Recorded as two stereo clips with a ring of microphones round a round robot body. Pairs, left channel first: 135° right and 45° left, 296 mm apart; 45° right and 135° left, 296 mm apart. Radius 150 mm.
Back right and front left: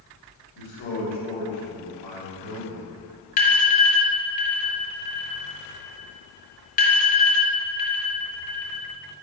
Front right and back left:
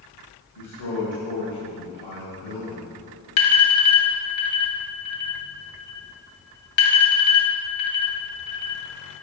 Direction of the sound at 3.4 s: 70° right.